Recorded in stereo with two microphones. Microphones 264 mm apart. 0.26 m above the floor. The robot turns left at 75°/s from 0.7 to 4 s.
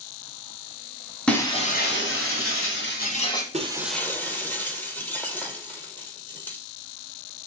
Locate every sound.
1.3 s breaking glass: 175° left, 1.1 m; by 3.4 s 15° left, 1.1 m
3.5 s breaking glass: 150° right, 0.7 m; by 6.6 s 175° left, 0.7 m